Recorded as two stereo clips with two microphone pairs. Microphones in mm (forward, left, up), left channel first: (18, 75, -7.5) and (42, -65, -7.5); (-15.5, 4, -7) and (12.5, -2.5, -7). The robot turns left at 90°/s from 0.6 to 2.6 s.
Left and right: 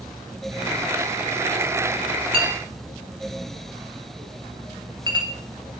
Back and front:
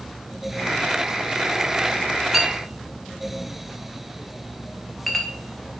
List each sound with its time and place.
2.3 s a clink: 95° right, 1.0 m; by 5.3 s 115° right, 1.0 m